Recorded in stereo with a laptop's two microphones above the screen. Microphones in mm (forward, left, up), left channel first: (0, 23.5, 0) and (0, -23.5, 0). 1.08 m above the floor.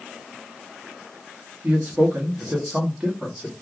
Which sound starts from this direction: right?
A man speaking, at 1.6 s.